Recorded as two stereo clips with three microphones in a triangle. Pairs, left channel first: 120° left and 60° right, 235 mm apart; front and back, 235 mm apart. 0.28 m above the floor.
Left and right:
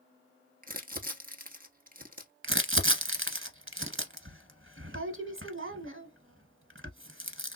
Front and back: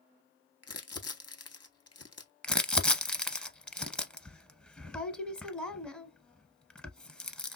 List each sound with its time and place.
0.6 s crumpling: 5° right, 0.7 m
2.4 s crumpling: 85° right, 0.6 m